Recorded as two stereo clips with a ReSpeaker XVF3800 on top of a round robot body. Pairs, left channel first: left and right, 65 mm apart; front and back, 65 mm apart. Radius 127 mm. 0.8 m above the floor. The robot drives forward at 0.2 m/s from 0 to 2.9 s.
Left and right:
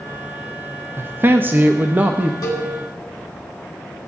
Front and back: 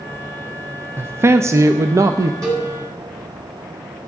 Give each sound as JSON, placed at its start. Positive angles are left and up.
{"t": 1.0, "sound": "a man speaking", "azimuth_deg": -135, "distance_m": 0.6}
{"t": 2.4, "sound": "a cowbell", "azimuth_deg": 135, "distance_m": 4.0}